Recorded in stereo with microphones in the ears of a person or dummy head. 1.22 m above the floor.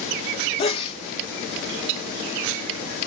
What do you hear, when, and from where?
0.6 s a sneeze: 35° left (ahead or behind), 1.3 m